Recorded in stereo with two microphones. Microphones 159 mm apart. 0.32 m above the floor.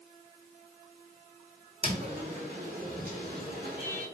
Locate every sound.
1.8 s footsteps: 30° right (ahead or behind), 1.1 m; by 4.0 s 70° right (ahead or behind), 1.3 m